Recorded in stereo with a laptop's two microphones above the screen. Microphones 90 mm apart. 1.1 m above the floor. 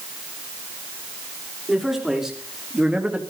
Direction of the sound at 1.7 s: Centre (ahead or behind).